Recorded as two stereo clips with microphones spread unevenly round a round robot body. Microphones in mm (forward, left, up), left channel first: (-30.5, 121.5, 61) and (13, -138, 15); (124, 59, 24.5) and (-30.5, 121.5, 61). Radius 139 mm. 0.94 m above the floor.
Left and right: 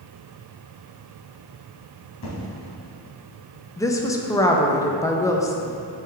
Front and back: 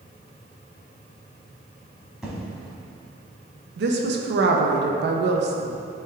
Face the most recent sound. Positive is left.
turn(degrees=180)